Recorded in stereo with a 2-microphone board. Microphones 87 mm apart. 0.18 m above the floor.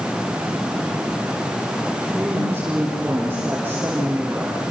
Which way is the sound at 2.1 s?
25° right (ahead or behind).